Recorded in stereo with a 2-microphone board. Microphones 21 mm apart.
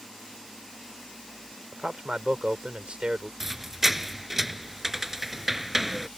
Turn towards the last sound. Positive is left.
turn(degrees=-15)  # may be behind; listen again after turning